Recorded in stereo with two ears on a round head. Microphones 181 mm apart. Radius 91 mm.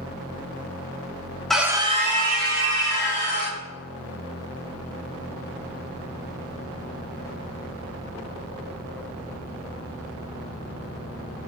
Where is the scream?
Centre (ahead or behind), 1.1 m; by 3.6 s 60° right (ahead or behind), 3 m.